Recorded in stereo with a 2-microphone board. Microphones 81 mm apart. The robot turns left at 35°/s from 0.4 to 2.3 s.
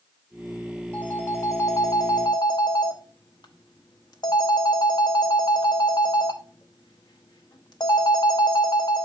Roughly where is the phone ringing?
Behind.